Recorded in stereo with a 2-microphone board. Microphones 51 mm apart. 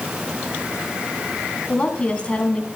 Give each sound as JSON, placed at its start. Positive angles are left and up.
{"t": 1.7, "sound": "a woman speaking", "side_deg": 20, "distance_m": 1.5}